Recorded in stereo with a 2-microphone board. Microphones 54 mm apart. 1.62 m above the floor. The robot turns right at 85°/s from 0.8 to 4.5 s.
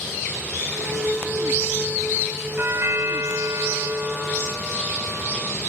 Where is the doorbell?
145° right, 3 m; by 5.5 s 20° left, 3 m.